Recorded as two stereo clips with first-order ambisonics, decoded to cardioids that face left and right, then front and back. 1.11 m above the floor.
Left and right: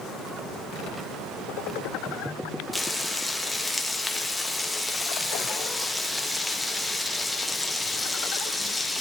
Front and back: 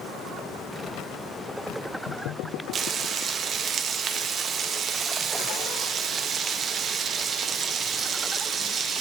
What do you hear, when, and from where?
2.7 s frying: 175° left, 0.6 m